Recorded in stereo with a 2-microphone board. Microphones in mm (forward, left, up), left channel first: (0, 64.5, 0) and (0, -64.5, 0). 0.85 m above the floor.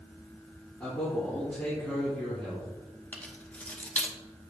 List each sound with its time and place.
0.8 s a man speaking: 20° left (ahead or behind), 2.5 m
3.1 s keys jangling: 10° left (ahead or behind), 0.9 m